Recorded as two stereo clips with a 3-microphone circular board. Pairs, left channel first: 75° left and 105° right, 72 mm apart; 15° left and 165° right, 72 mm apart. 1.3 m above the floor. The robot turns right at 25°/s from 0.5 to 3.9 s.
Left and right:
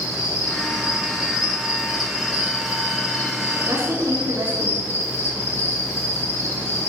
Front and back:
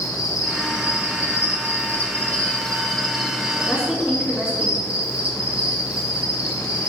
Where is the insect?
40° left, 3 m; by 6.9 s 125° left, 3 m.